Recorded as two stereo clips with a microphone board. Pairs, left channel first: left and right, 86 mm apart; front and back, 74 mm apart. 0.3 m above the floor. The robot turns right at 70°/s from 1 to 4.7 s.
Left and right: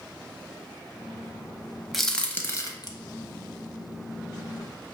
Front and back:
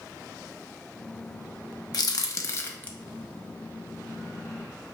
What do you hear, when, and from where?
1.9 s a crack: straight ahead, 0.5 m; by 2.9 s 65° left, 0.5 m